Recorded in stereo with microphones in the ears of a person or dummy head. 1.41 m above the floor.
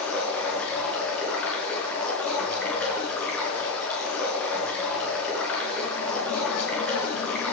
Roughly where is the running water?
Centre.